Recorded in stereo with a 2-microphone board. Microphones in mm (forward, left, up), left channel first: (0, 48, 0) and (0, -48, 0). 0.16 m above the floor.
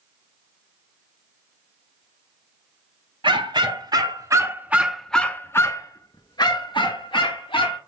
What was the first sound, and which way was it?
A dog barking, 60° right (ahead or behind).